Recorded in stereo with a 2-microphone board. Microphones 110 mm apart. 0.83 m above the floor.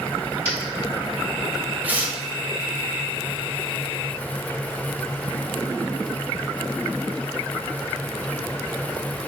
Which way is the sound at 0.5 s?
65° left (ahead or behind).